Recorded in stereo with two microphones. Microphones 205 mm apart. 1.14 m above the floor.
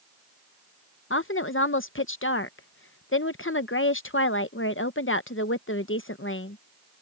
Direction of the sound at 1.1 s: 75° left (ahead or behind).